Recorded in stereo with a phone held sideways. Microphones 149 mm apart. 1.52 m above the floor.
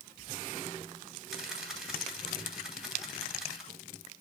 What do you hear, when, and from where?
1.3 s a camera shutter: centre (ahead or behind), 3 m